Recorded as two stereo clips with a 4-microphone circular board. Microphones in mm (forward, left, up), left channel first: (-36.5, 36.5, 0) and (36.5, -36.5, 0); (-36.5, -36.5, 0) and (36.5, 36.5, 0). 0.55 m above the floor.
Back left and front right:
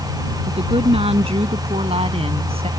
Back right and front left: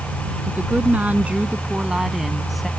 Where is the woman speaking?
25° right; by 2.7 s 45° right.